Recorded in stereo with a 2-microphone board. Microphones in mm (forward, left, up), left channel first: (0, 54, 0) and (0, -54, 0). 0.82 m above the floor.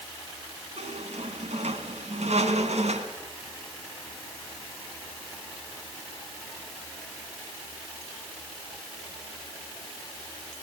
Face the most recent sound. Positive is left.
turn(degrees=-80)